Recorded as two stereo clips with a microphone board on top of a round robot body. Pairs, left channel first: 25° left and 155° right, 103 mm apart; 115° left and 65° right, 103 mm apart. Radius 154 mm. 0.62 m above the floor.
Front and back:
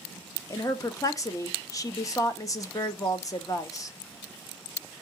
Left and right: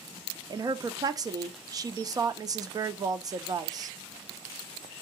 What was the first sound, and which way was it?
A woman speaking, 25° right.